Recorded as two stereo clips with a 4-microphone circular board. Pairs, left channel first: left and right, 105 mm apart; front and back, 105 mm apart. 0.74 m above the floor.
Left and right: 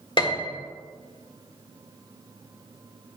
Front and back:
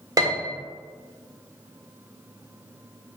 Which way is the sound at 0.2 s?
125° left.